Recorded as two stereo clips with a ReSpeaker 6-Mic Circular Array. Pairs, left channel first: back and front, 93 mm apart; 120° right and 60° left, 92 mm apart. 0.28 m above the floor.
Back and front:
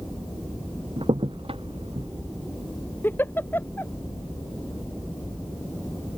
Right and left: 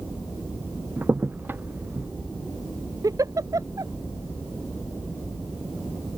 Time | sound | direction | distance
1.0 | a crack | 10° right | ?
3.0 | a giggle | 110° left | ?